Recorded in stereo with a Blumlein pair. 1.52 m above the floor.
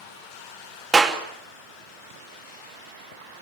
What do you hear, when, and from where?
0.9 s a clap: 20° right, 2.5 m